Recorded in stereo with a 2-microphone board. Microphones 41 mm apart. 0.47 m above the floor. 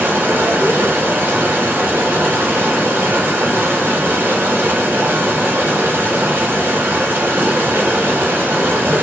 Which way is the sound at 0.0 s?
70° right (ahead or behind).